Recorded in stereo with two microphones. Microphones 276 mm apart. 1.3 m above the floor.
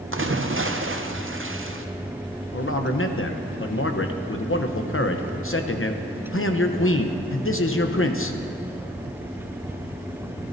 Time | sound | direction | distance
0.1 | a splash | 50° right (ahead or behind) | 0.7 m
2.5 | a man speaking | 50° left (ahead or behind) | 0.8 m